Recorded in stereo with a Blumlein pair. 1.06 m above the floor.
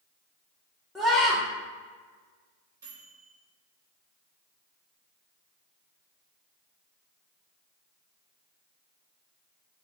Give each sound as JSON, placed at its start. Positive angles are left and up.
{"t": 0.9, "sound": "a scream", "azimuth_deg": 0, "distance_m": 1.0}
{"t": 2.8, "sound": "a microwave", "azimuth_deg": -65, "distance_m": 1.8}